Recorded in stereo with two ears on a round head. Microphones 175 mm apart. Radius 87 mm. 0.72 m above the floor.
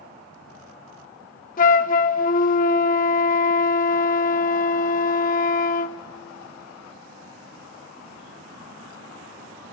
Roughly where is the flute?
Left.